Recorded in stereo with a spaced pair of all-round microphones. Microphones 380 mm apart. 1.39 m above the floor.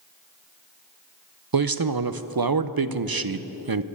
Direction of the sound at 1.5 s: 65° right (ahead or behind).